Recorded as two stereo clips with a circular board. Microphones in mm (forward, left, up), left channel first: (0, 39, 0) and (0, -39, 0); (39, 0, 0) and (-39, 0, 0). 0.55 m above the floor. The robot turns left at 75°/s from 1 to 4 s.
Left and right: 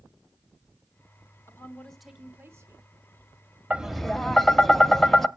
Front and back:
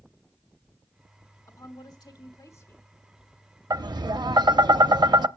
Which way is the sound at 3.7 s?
160° right.